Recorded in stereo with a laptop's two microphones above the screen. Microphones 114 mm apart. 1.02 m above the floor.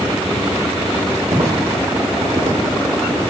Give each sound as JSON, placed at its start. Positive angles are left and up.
{"t": 1.3, "sound": "footsteps", "side_deg": -40, "distance_m": 3.5}